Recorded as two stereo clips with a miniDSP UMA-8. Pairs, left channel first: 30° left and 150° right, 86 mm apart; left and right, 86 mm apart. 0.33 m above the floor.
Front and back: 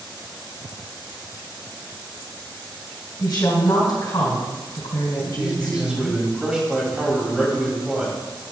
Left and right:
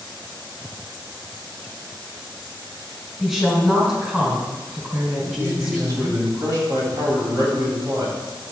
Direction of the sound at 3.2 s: Straight ahead.